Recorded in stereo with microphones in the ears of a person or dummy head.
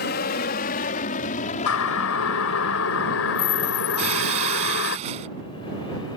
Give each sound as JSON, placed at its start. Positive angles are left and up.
{"t": 0.0, "sound": "an aircraft", "side_deg": 45}
{"t": 1.7, "sound": "a siren", "side_deg": 85}
{"t": 4.0, "sound": "breaking glass", "side_deg": -35}